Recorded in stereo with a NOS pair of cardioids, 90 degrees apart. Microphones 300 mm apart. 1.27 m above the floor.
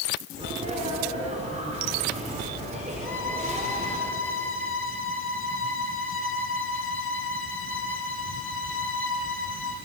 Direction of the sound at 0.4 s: 25° right.